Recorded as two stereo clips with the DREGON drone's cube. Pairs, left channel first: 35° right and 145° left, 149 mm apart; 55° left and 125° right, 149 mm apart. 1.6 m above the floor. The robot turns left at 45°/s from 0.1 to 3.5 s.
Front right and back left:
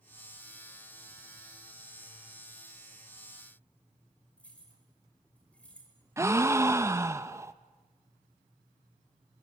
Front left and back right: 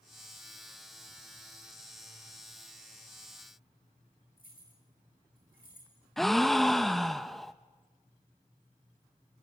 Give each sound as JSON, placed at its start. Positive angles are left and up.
{"t": 4.4, "sound": "keys jangling", "azimuth_deg": 45, "distance_m": 5.0}
{"t": 6.2, "sound": "a gasp", "azimuth_deg": 140, "distance_m": 0.8}